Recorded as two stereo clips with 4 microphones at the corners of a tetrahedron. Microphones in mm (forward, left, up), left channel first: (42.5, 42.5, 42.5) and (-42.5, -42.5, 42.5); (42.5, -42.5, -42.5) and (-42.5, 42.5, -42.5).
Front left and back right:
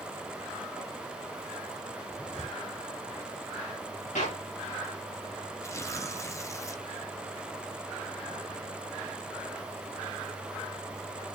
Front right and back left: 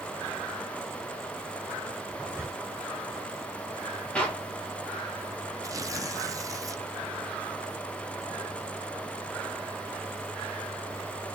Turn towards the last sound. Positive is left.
turn(degrees=90)